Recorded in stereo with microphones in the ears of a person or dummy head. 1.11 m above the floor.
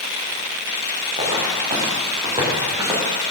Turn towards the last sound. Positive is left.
turn(degrees=-25)  # may be behind; listen again after turning